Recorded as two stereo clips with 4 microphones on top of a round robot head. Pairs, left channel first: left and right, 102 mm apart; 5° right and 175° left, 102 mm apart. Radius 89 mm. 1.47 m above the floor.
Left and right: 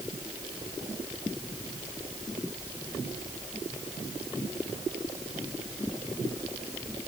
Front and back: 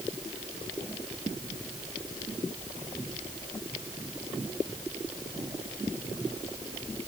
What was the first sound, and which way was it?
Only background noise.